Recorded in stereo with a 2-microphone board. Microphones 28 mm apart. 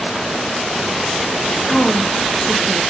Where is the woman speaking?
35° left (ahead or behind), 4 m.